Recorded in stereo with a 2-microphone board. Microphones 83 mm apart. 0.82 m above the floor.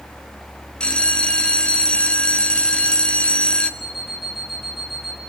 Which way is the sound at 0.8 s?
10° left (ahead or behind).